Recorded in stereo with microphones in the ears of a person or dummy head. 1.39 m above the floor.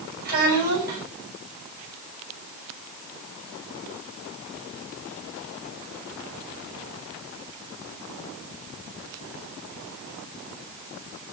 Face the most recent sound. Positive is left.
turn(degrees=-45)  # may be behind; listen again after turning